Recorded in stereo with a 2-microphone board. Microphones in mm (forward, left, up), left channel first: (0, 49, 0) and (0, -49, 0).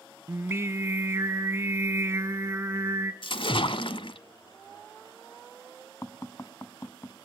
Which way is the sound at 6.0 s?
25° left (ahead or behind).